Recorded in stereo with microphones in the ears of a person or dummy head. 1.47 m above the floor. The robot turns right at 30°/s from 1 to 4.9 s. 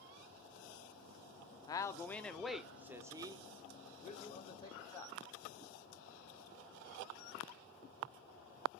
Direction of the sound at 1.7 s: 160° left.